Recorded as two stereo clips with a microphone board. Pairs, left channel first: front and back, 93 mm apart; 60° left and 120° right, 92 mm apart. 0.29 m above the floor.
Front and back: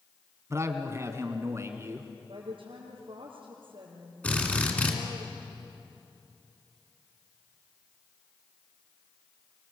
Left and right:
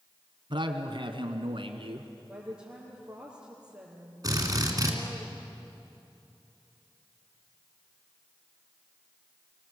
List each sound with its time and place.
0.5 s a man speaking: 125° right, 1.9 m
2.3 s a woman speaking: 160° left, 4.5 m
4.2 s a drill: 75° right, 3 m